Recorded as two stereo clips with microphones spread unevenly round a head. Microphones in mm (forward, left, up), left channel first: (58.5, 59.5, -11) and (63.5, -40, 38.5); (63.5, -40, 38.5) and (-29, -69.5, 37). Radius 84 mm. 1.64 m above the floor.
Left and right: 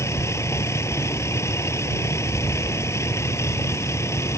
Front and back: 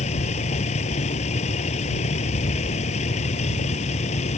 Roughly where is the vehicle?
Ahead left.